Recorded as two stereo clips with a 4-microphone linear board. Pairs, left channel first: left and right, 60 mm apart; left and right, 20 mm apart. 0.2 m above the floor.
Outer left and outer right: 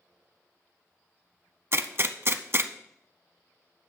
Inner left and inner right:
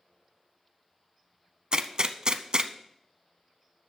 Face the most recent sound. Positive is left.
turn(degrees=-45)  # may be behind; listen again after turning